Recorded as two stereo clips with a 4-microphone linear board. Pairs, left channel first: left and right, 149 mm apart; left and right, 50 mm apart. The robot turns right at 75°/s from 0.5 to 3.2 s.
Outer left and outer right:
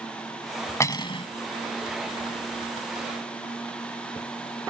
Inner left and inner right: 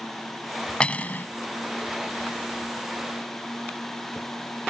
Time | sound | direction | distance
0.8 | cutlery clinking | 25° left | ?